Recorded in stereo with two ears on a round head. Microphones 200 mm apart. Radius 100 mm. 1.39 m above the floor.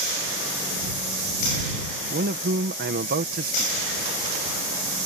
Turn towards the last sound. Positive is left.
turn(degrees=-45)  # may be behind; listen again after turning